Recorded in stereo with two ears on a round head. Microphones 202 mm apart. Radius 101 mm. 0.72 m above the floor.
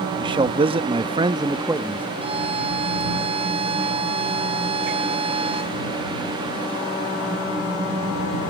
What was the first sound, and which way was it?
A man speaking, 20° right (ahead or behind).